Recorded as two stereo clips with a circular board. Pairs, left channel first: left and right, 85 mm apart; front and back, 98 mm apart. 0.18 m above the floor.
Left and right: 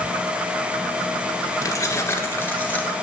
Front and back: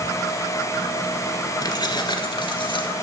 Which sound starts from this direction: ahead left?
Keys jangling, at 1.6 s.